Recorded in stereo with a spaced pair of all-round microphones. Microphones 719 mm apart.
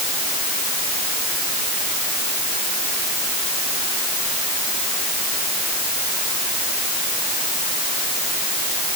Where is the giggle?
No giggle in this recording.